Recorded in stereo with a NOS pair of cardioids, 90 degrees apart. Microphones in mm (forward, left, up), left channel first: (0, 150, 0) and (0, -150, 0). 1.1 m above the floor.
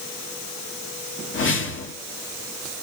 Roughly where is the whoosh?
Ahead left.